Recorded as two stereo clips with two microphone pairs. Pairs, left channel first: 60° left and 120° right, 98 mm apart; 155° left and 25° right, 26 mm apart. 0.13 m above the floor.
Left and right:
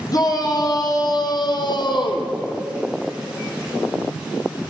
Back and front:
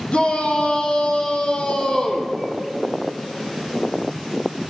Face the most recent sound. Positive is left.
turn(degrees=90)